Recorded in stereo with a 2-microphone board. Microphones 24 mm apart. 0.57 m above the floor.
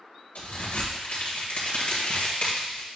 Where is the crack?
75° left (ahead or behind), 1.7 m.